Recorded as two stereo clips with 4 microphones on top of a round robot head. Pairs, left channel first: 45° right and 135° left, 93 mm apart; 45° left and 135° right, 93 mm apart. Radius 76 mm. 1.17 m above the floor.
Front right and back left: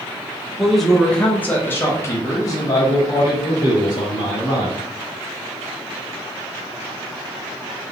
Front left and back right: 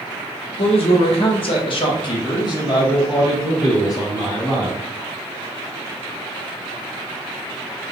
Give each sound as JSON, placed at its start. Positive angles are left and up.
{"t": 0.6, "sound": "a man speaking", "azimuth_deg": 45, "distance_m": 1.2}